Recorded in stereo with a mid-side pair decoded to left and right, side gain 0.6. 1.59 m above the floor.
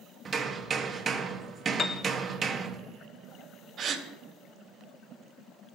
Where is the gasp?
45° right, 1.5 m.